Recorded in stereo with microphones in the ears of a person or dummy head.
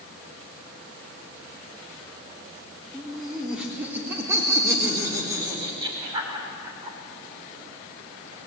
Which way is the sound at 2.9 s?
Centre (ahead or behind).